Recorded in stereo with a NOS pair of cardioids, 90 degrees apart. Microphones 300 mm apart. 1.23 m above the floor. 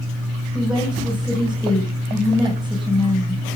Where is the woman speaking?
Straight ahead, 7 m.